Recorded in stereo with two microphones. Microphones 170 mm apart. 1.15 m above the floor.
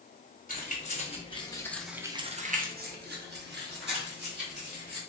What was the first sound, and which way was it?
Keys jangling, 45° left (ahead or behind).